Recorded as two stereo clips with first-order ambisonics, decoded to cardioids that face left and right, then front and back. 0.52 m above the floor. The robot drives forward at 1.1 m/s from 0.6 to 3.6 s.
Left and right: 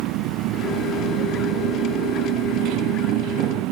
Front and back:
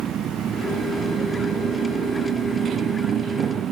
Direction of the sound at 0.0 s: 120° right.